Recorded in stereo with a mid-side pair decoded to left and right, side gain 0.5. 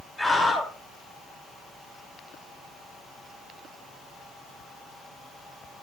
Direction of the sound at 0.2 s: 25° left.